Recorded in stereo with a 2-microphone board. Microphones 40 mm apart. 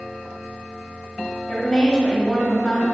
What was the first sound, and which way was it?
A woman speaking, 25° left (ahead or behind).